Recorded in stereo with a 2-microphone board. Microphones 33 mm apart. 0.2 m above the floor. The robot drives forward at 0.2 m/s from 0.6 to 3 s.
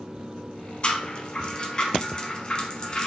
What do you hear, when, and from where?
0.8 s a rattle: 35° left (ahead or behind), 0.7 m; by 3.1 s 25° left (ahead or behind), 0.9 m